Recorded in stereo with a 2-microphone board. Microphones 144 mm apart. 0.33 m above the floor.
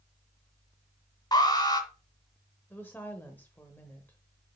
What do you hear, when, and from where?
1.3 s an alarm: 30° left (ahead or behind), 2.0 m
2.7 s a woman speaking: 15° left (ahead or behind), 0.9 m